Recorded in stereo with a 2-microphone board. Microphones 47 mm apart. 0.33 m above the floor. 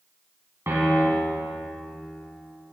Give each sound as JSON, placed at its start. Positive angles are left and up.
{"t": 0.7, "sound": "a piano", "side_deg": -65, "distance_m": 1.7}